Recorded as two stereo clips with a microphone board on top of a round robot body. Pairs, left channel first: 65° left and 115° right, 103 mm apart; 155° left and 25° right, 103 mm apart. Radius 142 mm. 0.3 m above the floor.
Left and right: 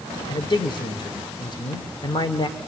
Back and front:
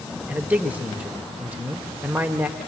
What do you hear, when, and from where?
0.3 s a man speaking: 50° left, 1.9 m